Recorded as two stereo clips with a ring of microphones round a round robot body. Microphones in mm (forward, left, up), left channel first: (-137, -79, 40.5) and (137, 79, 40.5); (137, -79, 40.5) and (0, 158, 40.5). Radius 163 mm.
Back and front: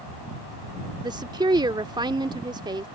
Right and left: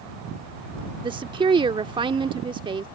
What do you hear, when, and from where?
1.0 s a woman speaking: 80° left